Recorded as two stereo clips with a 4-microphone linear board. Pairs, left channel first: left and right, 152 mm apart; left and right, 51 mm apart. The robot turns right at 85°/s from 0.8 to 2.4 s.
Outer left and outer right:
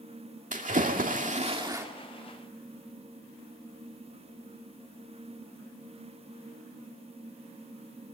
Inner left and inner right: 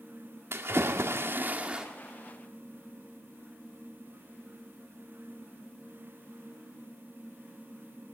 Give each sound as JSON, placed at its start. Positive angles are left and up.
{"t": 0.5, "sound": "a splash", "azimuth_deg": -110, "distance_m": 2.0}